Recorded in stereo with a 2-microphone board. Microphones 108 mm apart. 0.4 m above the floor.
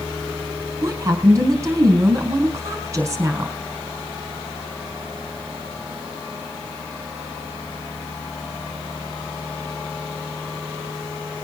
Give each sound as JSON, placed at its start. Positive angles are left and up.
{"t": 0.8, "sound": "a woman speaking", "side_deg": -30, "distance_m": 4.0}